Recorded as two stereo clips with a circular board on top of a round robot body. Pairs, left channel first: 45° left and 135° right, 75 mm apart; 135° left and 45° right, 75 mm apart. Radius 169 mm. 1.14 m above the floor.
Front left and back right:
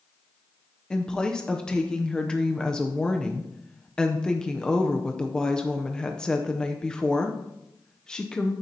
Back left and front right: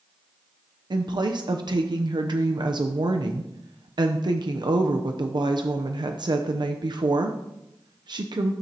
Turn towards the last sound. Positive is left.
turn(degrees=-35)